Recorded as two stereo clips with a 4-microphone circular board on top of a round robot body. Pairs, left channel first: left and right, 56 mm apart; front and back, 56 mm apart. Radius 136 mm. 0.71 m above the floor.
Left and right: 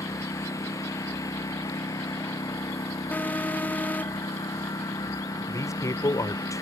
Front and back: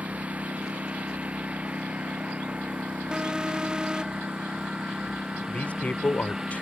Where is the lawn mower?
115° left; by 6.6 s 100° left.